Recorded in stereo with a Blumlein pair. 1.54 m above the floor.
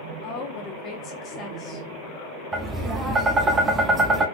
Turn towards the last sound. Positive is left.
turn(degrees=-15)